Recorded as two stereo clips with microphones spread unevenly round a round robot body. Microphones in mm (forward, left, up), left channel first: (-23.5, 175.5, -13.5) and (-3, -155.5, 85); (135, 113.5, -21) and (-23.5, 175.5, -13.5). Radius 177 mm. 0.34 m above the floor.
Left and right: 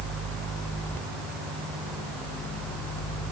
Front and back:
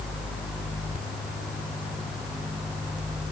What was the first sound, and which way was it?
Only background noise.